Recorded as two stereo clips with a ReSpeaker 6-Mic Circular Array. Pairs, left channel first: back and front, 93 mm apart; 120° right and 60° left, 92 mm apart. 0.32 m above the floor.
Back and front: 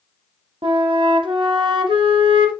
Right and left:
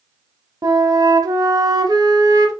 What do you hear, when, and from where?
0.6 s a flute: 15° left, 0.8 m